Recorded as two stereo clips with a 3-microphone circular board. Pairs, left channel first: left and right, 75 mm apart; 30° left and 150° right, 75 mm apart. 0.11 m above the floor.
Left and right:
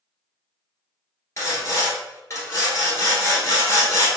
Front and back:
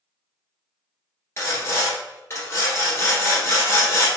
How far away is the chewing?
No chewing in this recording.